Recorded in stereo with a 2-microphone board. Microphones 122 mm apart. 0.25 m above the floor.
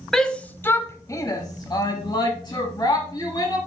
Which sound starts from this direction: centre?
A shout, at 0.1 s.